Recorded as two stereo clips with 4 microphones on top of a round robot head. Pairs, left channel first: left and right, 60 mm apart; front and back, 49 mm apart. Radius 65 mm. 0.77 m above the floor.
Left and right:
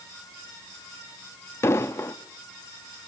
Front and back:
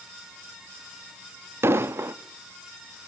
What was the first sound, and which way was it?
An explosion, 145° left.